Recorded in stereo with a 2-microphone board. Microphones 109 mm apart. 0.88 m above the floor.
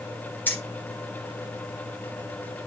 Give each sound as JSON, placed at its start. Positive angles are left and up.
{"t": 0.5, "sound": "keys jangling", "side_deg": 20, "distance_m": 1.9}